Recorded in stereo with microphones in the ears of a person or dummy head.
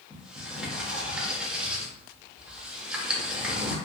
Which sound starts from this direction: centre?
A sliding door, at 0.1 s.